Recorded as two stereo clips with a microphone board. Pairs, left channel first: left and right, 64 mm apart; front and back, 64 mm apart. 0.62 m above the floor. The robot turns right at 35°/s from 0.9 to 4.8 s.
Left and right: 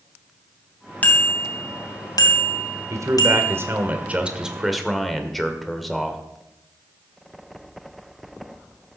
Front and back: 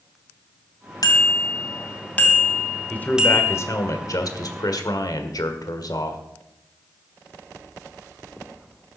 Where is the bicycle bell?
25° left, 3 m; by 3.6 s 115° left, 3 m.